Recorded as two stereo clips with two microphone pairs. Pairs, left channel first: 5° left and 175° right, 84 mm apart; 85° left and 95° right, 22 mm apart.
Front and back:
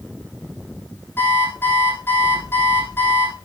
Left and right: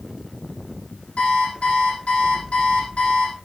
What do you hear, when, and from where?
1.2 s an alarm clock: 70° left, 5 m